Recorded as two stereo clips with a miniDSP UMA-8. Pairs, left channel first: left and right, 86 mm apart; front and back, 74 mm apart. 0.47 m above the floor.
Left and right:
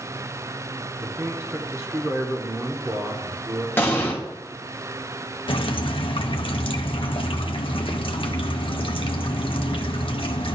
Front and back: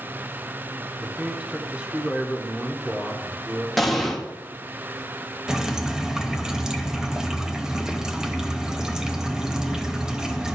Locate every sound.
1.0 s a man speaking: 115° right, 0.8 m
3.8 s an explosion: 85° left, 1.2 m
5.5 s dripping: 100° left, 0.6 m